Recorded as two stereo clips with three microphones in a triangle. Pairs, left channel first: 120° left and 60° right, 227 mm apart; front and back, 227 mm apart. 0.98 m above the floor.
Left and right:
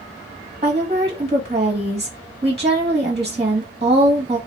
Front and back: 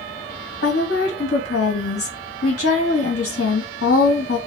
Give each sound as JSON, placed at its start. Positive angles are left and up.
{"t": 0.6, "sound": "a woman speaking", "azimuth_deg": 5, "distance_m": 0.8}